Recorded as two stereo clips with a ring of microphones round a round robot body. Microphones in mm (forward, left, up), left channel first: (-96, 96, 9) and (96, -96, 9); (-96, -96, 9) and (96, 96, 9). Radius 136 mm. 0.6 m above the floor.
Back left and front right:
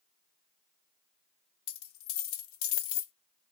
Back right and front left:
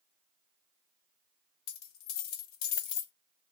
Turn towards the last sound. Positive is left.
turn(degrees=180)